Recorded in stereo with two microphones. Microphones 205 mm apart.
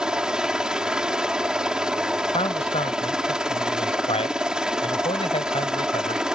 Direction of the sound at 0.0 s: 5° right (ahead or behind).